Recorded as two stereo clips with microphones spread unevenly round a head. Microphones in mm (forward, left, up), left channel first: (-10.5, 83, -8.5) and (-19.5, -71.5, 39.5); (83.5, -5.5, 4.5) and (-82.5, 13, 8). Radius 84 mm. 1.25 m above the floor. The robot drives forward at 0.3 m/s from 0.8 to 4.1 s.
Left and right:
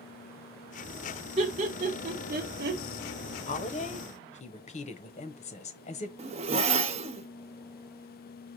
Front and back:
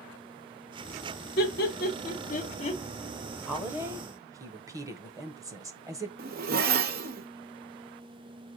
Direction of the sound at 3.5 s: 90° left.